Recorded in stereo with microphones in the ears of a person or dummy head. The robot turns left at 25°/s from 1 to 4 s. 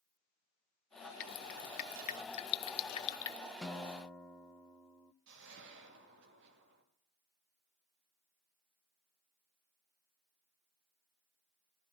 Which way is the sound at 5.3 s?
65° right (ahead or behind).